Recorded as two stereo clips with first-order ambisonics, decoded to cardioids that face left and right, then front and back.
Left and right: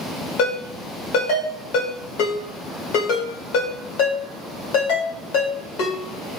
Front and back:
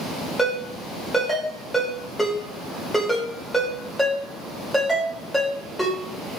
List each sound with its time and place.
0.4 s a ringtone: 90° left, 1.0 m